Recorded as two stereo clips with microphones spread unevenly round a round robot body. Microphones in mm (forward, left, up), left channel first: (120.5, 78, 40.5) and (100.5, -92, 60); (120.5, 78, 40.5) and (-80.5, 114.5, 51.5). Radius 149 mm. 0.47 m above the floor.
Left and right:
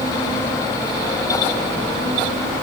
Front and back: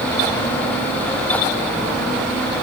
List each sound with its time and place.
Only background noise.